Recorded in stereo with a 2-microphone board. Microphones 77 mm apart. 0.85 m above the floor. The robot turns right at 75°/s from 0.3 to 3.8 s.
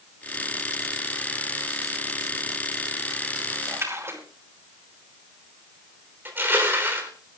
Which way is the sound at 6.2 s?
30° right (ahead or behind).